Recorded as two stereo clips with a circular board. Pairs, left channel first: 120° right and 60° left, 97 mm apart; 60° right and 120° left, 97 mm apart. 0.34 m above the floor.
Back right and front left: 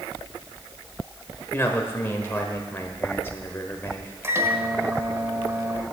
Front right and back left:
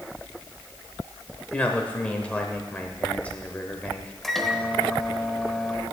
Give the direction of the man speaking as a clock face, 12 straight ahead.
4 o'clock.